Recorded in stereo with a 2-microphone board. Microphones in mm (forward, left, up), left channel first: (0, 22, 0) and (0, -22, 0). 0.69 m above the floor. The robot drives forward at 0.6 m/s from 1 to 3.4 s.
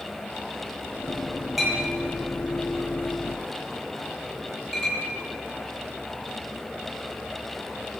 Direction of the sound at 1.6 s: 5° right (ahead or behind).